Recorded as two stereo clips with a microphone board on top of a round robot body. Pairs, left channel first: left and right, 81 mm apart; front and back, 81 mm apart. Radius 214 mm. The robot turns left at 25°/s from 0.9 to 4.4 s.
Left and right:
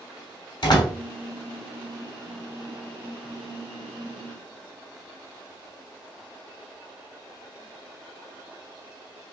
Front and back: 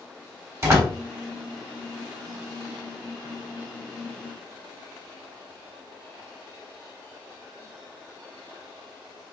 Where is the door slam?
125° left, 3 m.